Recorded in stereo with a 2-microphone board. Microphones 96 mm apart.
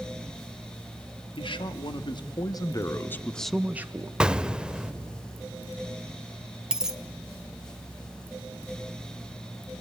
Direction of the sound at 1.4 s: 60° left (ahead or behind).